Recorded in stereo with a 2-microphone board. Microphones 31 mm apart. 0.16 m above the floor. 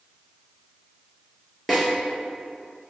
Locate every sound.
1.7 s a snare drum: centre (ahead or behind), 0.9 m